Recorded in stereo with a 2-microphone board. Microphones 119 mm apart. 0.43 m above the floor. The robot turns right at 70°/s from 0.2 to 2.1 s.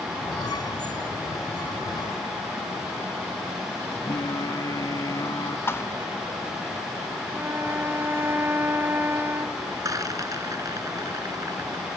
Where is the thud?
20° left (ahead or behind).